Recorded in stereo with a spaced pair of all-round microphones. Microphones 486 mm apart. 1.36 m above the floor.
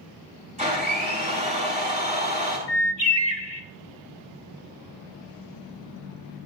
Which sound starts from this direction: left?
A bird, at 2.7 s.